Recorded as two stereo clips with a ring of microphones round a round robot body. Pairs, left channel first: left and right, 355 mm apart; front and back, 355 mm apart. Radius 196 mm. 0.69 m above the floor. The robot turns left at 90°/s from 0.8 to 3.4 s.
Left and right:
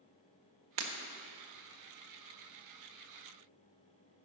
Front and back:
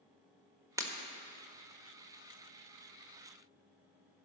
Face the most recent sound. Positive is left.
turn(degrees=30)